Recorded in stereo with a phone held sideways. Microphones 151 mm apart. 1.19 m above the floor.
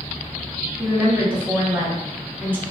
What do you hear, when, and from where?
0.8 s a woman speaking: 15° right (ahead or behind), 1.3 m